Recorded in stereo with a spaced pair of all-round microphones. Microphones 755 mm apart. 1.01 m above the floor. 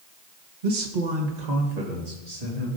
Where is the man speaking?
70° right (ahead or behind), 1.1 m; by 2.7 s 50° right (ahead or behind), 2.5 m.